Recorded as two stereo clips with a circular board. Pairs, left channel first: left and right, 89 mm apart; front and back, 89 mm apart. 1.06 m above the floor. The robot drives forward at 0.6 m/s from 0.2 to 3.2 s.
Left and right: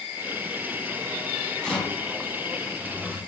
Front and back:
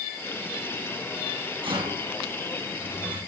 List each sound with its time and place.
1.6 s a rattle: 170° left, 3.5 m; by 3.2 s 175° left, 4.5 m